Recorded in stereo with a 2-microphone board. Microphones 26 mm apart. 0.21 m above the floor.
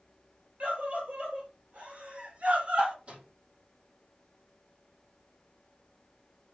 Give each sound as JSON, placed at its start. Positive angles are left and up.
{"t": 0.6, "sound": "a scream", "side_deg": -50, "distance_m": 4.5}
{"t": 3.1, "sound": "a microwave", "side_deg": -45, "distance_m": 4.5}